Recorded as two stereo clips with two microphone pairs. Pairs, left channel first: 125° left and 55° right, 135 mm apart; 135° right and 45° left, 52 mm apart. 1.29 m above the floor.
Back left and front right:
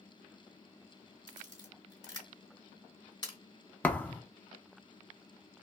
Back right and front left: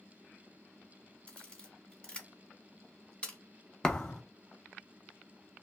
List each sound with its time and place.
1.3 s a camera shutter: 170° left, 1.3 m
3.8 s a thud: 175° right, 0.5 m